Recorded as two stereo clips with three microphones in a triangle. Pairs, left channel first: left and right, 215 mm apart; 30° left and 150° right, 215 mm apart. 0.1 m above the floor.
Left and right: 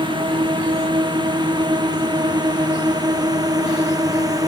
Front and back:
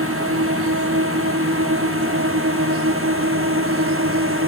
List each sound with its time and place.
0.0 s a drone: 160° right; by 4.5 s 165° right